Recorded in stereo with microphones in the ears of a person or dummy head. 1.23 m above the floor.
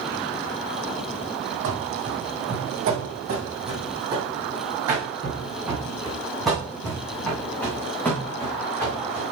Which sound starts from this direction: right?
Running footsteps, at 1.6 s.